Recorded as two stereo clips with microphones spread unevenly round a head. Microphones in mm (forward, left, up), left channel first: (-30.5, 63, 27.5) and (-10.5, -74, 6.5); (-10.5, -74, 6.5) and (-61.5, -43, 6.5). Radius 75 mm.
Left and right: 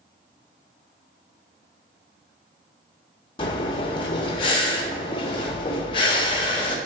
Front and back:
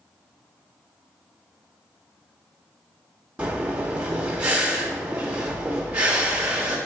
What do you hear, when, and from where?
3.4 s breathing: 80° left, 0.9 m